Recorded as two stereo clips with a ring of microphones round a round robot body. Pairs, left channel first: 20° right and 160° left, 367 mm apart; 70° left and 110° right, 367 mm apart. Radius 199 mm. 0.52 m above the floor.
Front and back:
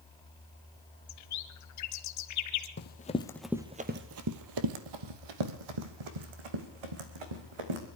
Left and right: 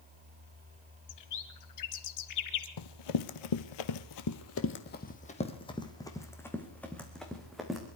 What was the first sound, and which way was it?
A bird, 25° left.